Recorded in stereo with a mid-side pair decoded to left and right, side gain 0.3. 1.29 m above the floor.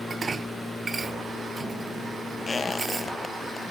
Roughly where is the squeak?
Ahead left.